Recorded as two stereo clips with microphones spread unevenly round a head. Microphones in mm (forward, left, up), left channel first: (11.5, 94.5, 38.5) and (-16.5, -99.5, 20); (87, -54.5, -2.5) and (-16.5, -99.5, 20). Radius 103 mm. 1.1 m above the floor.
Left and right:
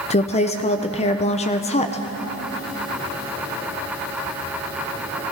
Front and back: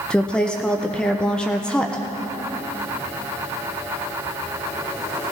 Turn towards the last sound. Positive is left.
turn(degrees=70)